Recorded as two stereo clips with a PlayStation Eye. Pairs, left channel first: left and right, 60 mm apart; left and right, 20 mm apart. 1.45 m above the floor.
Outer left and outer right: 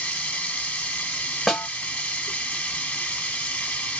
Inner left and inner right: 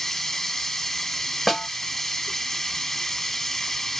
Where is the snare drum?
5° left (ahead or behind), 0.8 m.